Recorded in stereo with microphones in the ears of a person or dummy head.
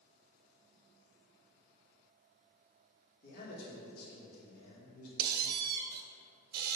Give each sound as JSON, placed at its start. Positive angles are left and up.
{"t": 3.2, "sound": "a man speaking", "side_deg": 55, "distance_m": 2.0}
{"t": 5.2, "sound": "a squeak", "side_deg": -50, "distance_m": 0.8}